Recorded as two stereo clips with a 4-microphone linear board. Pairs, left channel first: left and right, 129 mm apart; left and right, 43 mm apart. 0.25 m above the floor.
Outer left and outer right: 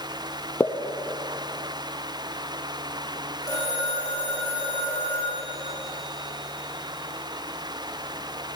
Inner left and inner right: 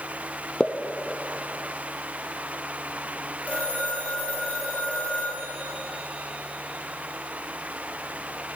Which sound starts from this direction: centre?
A pop, at 0.6 s.